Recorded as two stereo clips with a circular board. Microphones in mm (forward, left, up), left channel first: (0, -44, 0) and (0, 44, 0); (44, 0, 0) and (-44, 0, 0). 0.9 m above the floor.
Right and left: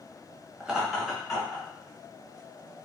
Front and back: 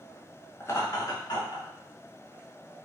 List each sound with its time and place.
0.6 s laughter: 20° left, 0.6 m; by 1.7 s 5° right, 1.0 m